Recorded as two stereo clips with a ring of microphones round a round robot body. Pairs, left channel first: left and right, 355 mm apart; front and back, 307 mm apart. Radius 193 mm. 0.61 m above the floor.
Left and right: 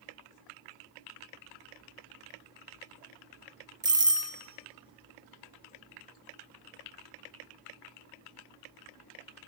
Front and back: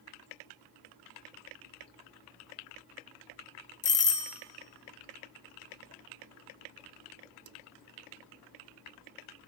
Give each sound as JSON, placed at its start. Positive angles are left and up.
{"t": 3.8, "sound": "a doorbell", "azimuth_deg": -25, "distance_m": 1.0}